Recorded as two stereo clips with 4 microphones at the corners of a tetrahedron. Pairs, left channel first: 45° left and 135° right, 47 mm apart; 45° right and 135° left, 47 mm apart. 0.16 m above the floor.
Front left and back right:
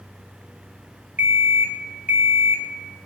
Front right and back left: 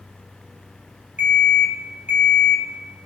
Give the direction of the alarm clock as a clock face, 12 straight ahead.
6 o'clock.